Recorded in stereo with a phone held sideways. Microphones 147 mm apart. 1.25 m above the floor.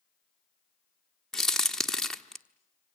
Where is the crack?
5° left (ahead or behind), 1.1 m.